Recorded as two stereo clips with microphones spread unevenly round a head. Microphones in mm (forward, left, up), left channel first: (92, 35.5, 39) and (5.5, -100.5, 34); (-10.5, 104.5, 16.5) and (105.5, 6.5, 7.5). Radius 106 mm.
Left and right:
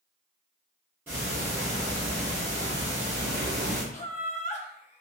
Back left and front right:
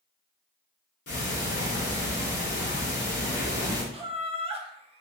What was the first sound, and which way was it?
Ticking, 155° left.